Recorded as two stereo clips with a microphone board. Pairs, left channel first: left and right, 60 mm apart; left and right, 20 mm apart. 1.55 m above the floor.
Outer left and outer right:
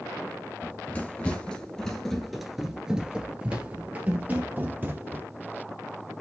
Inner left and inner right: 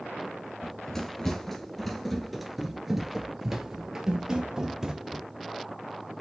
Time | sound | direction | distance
0.6 | running footsteps | 25° left (ahead or behind) | 1.8 m